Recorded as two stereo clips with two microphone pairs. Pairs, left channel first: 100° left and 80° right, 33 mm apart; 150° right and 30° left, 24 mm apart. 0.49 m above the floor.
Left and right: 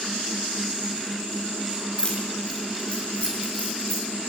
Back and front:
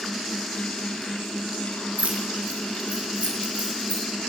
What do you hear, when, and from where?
2.0 s keys jangling: 45° left, 7 m; by 4.0 s 60° left, 7.5 m